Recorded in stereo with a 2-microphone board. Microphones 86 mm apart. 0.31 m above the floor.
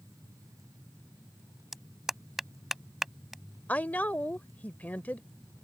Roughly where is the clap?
Centre.